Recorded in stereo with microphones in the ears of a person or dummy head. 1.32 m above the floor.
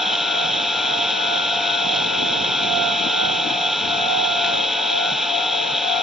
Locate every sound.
0.0 s an engine running: centre (ahead or behind)